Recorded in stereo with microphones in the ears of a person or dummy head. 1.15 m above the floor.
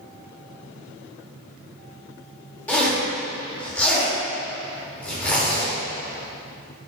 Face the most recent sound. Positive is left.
turn(degrees=5)  # may be behind; listen again after turning